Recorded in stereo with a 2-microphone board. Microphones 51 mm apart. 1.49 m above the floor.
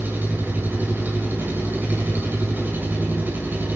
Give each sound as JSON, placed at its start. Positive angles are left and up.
{"t": 0.0, "sound": "an engine running", "side_deg": -40, "distance_m": 7.0}